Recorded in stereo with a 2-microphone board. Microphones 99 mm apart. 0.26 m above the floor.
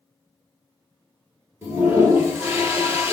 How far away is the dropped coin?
I don't hear a dropped coin.